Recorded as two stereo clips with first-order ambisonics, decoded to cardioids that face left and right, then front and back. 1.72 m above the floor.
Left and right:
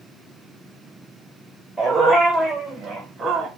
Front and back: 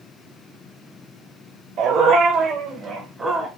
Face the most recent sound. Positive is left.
turn(degrees=-110)